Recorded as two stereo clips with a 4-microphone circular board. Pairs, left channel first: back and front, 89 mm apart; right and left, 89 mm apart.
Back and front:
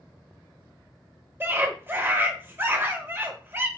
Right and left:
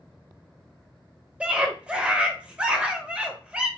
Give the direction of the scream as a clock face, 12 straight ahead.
11 o'clock.